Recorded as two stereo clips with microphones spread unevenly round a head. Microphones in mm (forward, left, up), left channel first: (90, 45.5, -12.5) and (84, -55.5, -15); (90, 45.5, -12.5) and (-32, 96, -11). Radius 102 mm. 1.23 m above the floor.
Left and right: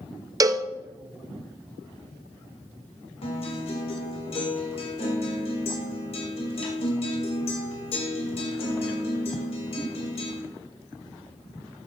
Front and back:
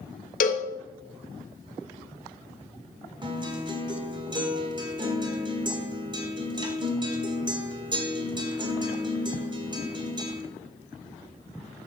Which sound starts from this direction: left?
A guitar, at 3.2 s.